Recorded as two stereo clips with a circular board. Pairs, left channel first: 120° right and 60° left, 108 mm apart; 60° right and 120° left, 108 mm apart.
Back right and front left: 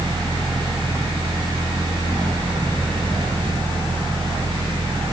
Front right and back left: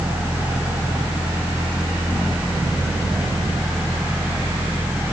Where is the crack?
I don't hear a crack.